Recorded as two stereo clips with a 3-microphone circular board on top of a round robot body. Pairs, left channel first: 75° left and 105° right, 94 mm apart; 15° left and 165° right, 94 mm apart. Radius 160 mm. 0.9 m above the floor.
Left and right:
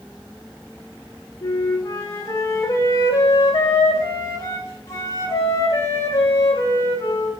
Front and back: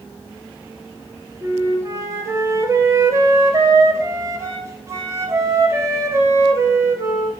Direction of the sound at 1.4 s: 135° left.